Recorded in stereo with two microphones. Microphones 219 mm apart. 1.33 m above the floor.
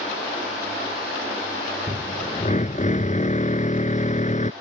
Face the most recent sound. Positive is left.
turn(degrees=35)  # may be behind; listen again after turning